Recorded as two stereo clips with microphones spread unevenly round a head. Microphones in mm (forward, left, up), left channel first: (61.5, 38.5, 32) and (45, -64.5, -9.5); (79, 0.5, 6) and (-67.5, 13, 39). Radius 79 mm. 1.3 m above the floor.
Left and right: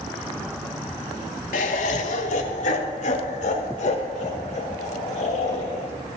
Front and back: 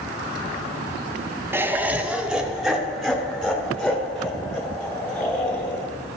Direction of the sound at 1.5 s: 95° left.